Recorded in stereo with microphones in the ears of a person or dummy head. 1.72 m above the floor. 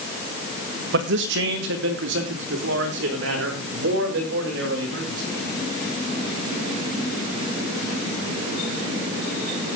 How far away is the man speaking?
About 1.9 m.